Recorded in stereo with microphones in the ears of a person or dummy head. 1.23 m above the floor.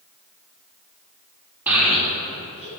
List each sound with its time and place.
1.7 s a child speaking: 10° right (ahead or behind), 2.0 m; by 2.7 s 40° left (ahead or behind), 1.8 m